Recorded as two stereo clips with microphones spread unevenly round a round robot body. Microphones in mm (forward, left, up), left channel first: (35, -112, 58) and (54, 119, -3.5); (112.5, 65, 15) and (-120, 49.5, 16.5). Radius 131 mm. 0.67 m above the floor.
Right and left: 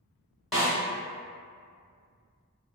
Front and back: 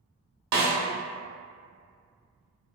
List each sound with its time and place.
0.5 s a snare drum: 175° left, 1.1 m